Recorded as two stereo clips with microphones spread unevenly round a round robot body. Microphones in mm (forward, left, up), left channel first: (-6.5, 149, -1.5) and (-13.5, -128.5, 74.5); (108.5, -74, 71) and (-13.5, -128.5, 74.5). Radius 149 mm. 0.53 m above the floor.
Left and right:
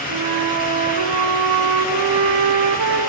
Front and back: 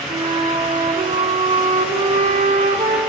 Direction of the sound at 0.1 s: 110° right.